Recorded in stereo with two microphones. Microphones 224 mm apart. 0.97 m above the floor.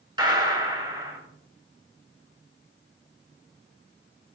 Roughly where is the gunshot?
Centre.